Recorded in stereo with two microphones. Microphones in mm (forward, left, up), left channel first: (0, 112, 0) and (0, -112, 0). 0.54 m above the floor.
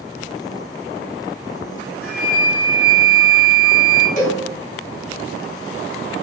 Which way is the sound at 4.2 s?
35° left (ahead or behind).